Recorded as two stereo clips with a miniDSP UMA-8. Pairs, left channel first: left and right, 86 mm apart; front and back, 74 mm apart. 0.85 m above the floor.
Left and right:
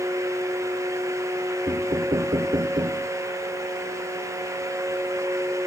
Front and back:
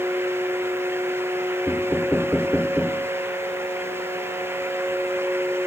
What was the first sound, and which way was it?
Knocking, 75° right.